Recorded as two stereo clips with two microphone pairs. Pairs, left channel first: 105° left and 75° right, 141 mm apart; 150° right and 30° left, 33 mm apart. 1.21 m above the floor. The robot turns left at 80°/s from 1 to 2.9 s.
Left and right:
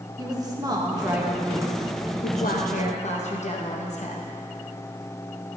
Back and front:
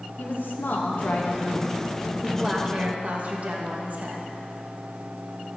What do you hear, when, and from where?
0.2 s a woman speaking: 135° right, 1.0 m; by 4.3 s 70° left, 1.0 m